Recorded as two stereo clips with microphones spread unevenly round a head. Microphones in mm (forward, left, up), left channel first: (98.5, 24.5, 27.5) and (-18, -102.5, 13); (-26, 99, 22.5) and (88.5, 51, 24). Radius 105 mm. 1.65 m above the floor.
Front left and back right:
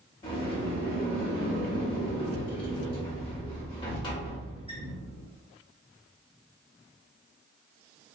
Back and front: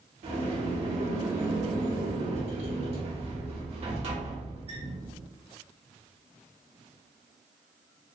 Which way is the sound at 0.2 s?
5° right.